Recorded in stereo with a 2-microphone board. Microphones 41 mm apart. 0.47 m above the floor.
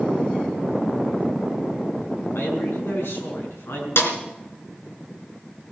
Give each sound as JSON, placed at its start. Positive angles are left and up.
{"t": 2.4, "sound": "a man speaking", "side_deg": 75, "distance_m": 5.5}
{"t": 4.0, "sound": "a snare drum", "side_deg": 80, "distance_m": 2.5}